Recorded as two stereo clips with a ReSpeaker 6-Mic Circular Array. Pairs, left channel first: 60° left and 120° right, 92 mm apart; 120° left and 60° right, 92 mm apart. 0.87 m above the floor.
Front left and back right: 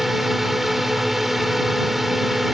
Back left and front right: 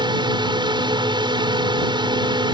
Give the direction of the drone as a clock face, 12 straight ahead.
1 o'clock.